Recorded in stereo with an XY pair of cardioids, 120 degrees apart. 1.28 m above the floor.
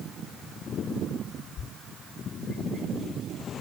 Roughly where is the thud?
Ahead left.